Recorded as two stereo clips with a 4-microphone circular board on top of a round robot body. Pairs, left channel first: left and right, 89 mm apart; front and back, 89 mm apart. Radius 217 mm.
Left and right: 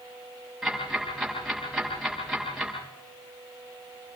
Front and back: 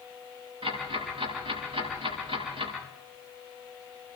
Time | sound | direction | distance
0.6 | ticking | 175° right | 8.5 m